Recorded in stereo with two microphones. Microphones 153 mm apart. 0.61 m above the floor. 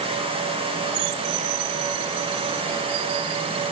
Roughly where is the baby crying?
I don't hear a baby crying.